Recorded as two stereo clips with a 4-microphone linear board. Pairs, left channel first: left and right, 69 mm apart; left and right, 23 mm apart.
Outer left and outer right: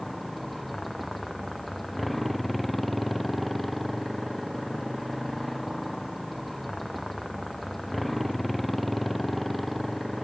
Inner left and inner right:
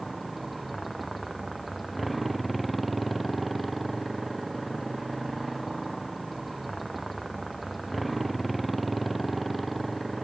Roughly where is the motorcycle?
Centre.